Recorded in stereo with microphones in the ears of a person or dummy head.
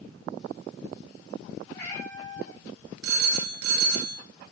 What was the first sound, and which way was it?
A cat meowing, 20° left (ahead or behind).